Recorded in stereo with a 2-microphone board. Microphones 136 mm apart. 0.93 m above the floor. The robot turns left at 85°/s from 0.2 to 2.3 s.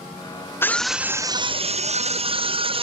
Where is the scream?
25° left, 0.5 m; by 2.8 s 120° right, 0.5 m.